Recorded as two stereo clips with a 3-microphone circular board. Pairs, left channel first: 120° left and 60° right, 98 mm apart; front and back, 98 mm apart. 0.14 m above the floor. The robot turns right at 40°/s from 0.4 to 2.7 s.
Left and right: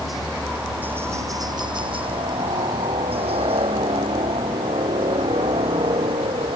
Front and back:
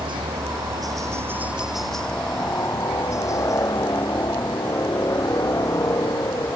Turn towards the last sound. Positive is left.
turn(degrees=-55)